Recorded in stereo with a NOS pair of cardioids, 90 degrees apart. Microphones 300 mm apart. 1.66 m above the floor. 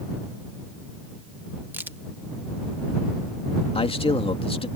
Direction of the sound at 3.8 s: 20° left.